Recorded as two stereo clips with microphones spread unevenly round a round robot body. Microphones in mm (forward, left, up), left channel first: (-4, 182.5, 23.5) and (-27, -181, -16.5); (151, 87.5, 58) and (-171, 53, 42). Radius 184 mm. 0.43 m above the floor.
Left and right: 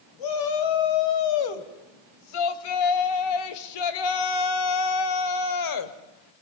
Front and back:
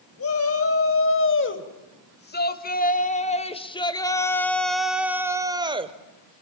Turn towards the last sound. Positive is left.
turn(degrees=120)